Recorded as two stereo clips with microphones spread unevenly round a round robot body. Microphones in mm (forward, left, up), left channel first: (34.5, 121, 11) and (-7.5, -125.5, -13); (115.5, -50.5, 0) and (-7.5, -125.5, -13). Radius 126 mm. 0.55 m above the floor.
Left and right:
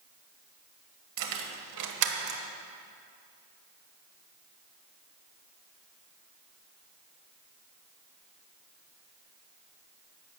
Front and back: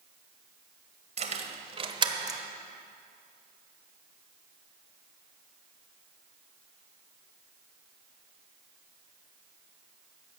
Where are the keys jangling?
110° right, 1.5 m; by 2.4 s 80° right, 1.0 m.